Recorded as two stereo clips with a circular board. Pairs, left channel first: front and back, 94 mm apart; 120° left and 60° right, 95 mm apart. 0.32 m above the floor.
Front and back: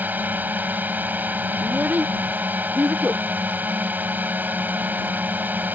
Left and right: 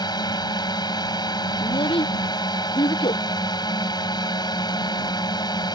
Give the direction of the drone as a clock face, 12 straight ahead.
8 o'clock.